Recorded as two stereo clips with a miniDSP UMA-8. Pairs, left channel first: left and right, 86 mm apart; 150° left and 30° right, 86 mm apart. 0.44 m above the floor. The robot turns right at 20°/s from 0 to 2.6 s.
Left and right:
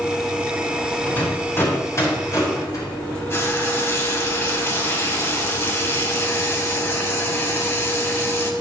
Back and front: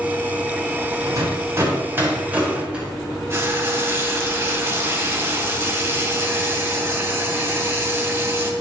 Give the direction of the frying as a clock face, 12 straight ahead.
11 o'clock.